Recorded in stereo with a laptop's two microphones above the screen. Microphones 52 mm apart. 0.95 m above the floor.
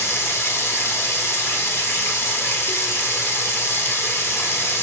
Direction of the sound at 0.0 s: 65° left (ahead or behind).